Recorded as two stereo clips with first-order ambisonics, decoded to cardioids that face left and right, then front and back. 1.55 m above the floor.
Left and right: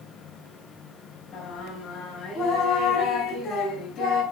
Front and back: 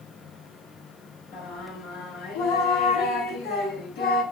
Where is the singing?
30° left, 8.5 m.